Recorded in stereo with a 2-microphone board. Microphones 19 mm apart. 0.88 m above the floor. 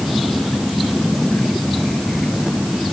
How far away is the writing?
I don't hear writing.